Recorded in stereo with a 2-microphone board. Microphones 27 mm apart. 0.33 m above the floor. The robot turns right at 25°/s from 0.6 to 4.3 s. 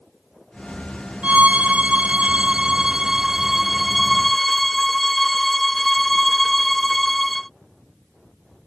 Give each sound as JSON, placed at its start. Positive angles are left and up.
{"t": 1.2, "sound": "a violin", "azimuth_deg": -75}